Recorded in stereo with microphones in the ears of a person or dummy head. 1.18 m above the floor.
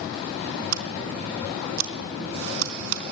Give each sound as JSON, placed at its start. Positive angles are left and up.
{"t": 0.7, "sound": "scissors", "side_deg": -75, "distance_m": 3.5}